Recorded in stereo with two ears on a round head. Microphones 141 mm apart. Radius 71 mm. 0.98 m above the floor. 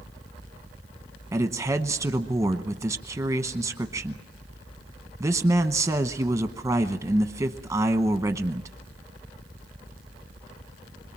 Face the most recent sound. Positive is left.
turn(degrees=-20)  # may be behind; listen again after turning